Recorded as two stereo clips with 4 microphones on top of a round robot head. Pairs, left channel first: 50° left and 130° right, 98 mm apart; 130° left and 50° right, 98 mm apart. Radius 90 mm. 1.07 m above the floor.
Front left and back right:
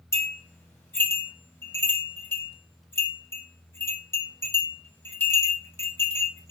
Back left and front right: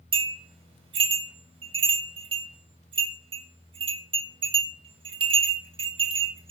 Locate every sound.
0.1 s a bell: 15° right, 5.5 m